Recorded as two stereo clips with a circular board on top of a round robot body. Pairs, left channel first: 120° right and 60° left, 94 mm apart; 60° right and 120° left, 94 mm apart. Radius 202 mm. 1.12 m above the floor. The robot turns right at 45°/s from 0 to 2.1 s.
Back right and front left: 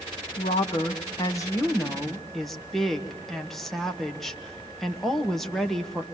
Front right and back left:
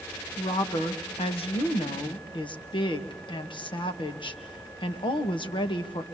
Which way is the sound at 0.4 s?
110° right.